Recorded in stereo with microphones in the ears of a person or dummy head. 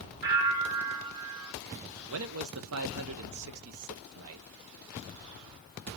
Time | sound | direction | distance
0.2 | a bell | 55° right (ahead or behind) | 2.5 m
2.1 | a man speaking | 80° right | 0.9 m